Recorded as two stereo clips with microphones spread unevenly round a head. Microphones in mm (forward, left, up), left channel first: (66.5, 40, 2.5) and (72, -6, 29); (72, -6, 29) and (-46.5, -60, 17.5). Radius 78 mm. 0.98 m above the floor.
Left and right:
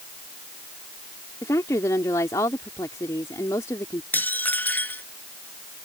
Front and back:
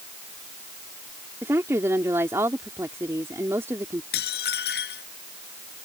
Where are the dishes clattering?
45° left.